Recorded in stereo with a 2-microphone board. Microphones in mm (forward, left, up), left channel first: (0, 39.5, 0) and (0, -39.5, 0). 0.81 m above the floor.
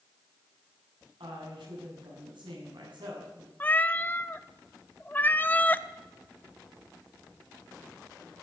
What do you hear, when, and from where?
1.2 s a woman speaking: 85° right, 7 m
3.6 s a cat meowing: 20° left (ahead or behind), 0.5 m